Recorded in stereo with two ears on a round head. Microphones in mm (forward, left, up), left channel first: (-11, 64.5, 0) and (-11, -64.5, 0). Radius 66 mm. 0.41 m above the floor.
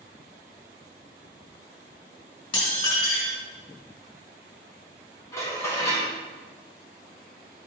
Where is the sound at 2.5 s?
45° left (ahead or behind), 3.5 m.